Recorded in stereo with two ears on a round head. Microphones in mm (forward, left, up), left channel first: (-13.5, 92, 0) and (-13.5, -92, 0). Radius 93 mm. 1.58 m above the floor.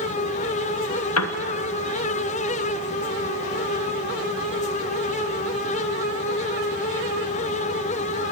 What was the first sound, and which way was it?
A piano, 85° left.